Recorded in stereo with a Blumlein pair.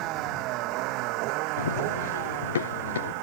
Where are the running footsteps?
65° left.